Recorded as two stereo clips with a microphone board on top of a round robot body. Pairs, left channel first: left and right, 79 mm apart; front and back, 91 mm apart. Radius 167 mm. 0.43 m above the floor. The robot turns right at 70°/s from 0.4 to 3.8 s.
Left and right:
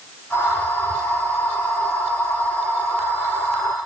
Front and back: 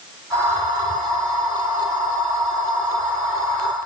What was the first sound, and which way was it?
Only background noise.